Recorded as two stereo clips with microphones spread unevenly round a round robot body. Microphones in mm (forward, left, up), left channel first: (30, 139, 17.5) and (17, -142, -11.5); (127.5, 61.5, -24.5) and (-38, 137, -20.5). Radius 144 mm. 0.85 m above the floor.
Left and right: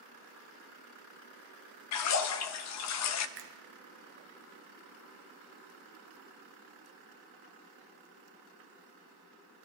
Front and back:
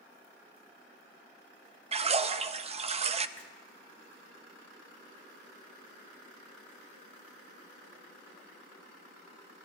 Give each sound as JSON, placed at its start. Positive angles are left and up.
{"t": 1.9, "sound": "a splash", "azimuth_deg": 105, "distance_m": 0.5}
{"t": 3.4, "sound": "a finger snap", "azimuth_deg": -105, "distance_m": 0.8}